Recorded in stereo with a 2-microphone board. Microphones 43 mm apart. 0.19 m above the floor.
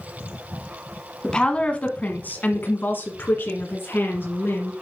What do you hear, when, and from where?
1.2 s a woman speaking: 20° left (ahead or behind), 1.4 m; by 4.7 s 60° left (ahead or behind), 2.5 m